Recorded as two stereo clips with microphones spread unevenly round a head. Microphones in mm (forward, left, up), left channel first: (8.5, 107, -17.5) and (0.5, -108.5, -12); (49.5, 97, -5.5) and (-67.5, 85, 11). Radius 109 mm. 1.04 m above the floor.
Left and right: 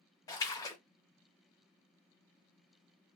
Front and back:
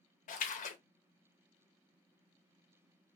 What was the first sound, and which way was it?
A splash, 10° left.